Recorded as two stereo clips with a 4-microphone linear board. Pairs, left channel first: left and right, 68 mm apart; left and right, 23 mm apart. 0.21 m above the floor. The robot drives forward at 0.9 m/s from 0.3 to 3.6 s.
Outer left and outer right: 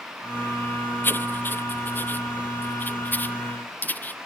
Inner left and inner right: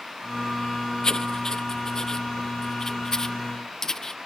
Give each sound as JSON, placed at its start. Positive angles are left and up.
{"t": 1.0, "sound": "writing", "side_deg": 30}